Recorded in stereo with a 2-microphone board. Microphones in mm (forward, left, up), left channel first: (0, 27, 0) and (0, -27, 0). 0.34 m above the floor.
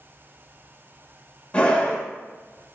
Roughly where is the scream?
Left.